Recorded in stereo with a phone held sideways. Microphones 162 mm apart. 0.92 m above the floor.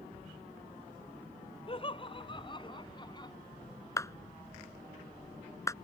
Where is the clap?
20° left (ahead or behind).